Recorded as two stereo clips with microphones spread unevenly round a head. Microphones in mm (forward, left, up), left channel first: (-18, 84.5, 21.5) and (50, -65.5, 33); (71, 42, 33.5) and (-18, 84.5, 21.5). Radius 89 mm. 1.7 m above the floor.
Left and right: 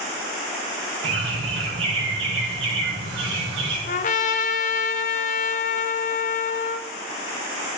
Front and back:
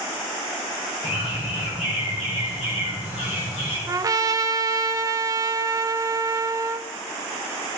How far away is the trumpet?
About 0.7 m.